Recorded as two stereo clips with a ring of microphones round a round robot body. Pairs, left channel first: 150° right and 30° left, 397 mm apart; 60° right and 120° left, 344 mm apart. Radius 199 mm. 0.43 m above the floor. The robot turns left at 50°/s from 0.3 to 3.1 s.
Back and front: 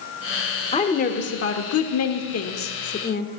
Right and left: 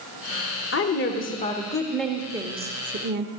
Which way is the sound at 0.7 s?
85° right.